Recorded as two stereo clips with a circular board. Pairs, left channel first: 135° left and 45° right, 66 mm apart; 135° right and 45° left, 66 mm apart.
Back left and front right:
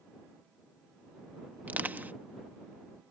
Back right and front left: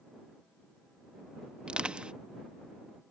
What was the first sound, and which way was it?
Crushing, 15° right.